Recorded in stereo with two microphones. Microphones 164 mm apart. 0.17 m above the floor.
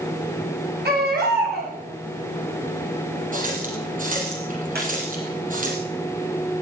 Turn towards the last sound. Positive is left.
turn(degrees=-75)  # may be behind; listen again after turning